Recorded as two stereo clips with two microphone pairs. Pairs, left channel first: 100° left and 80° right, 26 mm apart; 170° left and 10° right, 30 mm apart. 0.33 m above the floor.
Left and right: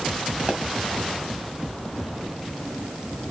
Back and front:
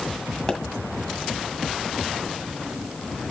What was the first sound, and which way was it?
A pop, 120° right.